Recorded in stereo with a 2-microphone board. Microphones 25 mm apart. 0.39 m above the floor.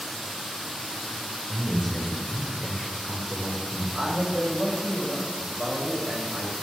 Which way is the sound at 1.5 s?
10° left (ahead or behind).